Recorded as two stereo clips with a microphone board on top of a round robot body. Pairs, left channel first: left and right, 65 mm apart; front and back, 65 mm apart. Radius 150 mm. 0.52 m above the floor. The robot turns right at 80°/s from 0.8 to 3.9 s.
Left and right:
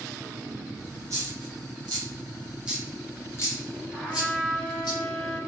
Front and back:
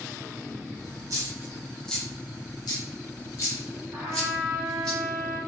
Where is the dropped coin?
145° right, 0.8 m; by 4.9 s 80° left, 0.8 m.